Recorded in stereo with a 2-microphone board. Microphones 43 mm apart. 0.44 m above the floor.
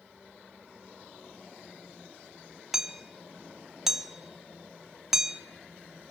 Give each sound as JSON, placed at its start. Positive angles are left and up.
{"t": 2.7, "sound": "hammering", "side_deg": -5, "distance_m": 2.5}